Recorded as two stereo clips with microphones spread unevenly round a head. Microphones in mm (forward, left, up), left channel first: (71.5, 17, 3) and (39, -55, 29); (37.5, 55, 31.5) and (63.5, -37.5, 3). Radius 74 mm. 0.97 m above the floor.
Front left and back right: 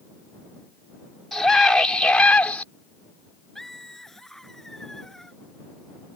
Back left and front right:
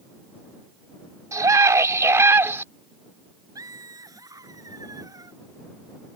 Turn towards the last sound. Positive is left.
turn(degrees=-20)